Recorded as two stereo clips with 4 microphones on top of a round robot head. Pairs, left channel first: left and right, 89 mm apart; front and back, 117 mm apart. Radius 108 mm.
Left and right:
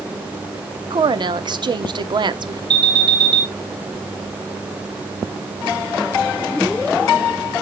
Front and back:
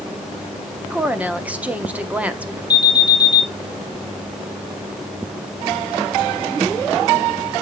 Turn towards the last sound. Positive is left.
turn(degrees=-55)